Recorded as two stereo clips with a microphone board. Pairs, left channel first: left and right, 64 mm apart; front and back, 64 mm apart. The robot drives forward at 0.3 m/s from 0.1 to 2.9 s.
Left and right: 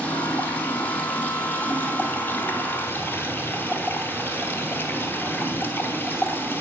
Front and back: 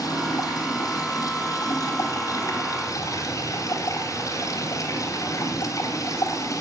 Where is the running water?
20° left, 2 m; by 6.6 s 35° left, 1.4 m.